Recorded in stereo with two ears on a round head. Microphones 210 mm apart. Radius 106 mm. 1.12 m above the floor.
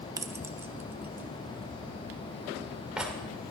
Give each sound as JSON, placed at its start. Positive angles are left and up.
{"t": 0.2, "sound": "keys jangling", "side_deg": -15, "distance_m": 0.6}